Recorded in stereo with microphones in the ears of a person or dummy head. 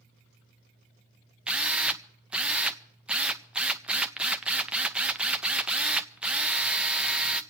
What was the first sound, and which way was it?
A drill, 10° right (ahead or behind).